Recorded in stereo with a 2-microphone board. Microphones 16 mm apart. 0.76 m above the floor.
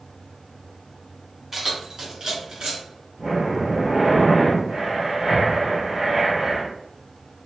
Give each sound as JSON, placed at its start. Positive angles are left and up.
{"t": 1.5, "sound": "keys jangling", "side_deg": -15, "distance_m": 1.2}
{"t": 3.2, "sound": "breathing", "side_deg": -75, "distance_m": 1.5}